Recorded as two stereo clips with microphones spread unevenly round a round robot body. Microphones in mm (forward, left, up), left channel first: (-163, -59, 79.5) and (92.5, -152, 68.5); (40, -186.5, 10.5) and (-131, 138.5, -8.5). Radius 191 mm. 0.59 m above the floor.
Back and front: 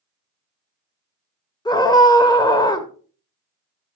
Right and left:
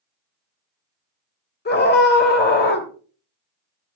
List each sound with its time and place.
1.6 s a scream: 125° right, 2.5 m